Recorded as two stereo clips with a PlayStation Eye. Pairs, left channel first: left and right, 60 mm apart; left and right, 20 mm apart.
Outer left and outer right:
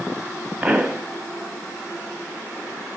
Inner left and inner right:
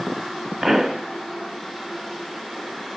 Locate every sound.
0.6 s a pop: 15° right (ahead or behind), 1.1 m